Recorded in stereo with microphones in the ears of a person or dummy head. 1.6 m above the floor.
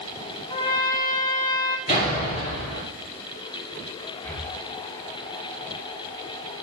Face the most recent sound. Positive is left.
turn(degrees=10)  # may be behind; listen again after turning